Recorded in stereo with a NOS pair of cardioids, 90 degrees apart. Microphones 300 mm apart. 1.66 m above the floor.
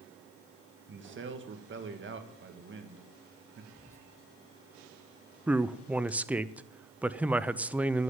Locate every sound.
0.9 s a man speaking: 40° right, 2.0 m
3.7 s whispering: 10° left, 1.7 m
5.5 s a man speaking: 5° right, 0.6 m